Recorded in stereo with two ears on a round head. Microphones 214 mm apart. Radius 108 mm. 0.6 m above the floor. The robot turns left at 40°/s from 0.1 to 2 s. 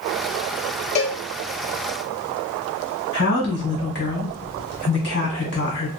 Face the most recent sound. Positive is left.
turn(degrees=45)  # may be behind; listen again after turning